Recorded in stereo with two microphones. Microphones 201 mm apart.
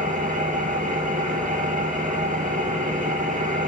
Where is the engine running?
40° right (ahead or behind), 3.5 m.